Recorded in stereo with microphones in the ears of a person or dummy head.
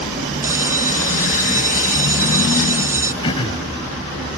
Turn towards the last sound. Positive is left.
turn(degrees=30)  # may be behind; listen again after turning